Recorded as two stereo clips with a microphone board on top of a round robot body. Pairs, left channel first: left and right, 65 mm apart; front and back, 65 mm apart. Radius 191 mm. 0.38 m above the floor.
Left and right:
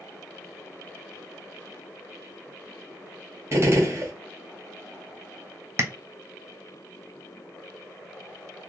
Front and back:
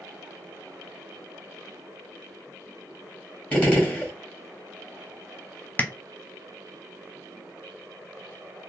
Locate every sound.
3.5 s a gunshot: 60° right, 1.8 m
5.8 s tapping: 55° right, 1.0 m